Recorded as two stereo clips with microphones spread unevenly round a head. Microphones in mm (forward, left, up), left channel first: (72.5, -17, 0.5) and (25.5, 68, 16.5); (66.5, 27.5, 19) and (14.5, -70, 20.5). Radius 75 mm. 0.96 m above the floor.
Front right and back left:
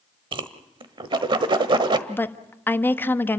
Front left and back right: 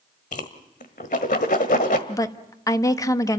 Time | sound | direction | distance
0.3 | a whoosh | 95° left | 1.4 m
2.1 | a woman speaking | 5° left | 1.4 m